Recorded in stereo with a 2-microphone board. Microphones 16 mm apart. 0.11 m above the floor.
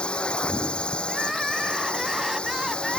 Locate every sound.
0.0 s a drone: 70° left (ahead or behind)
1.1 s crying: 20° right (ahead or behind)